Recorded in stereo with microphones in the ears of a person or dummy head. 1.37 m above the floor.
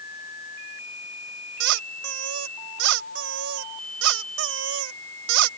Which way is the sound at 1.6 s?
70° right (ahead or behind).